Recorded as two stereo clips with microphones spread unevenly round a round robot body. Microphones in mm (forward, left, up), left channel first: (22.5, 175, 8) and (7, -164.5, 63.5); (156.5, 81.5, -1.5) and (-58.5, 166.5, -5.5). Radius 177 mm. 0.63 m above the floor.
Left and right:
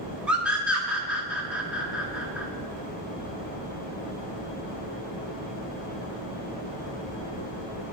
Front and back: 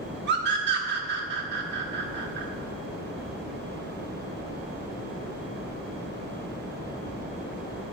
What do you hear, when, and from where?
0.3 s a scream: 170° left, 1.1 m